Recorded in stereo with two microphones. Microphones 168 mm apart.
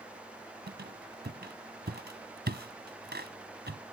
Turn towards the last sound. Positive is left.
turn(degrees=-85)